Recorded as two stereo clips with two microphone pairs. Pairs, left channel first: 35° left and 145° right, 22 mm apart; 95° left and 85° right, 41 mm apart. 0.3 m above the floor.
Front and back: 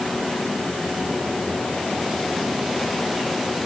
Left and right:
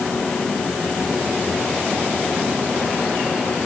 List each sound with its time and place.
Only background noise.